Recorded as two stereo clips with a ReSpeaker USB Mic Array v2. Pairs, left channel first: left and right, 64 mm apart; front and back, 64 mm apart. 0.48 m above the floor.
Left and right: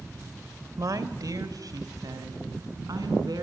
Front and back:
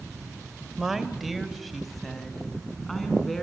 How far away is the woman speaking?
About 1.6 m.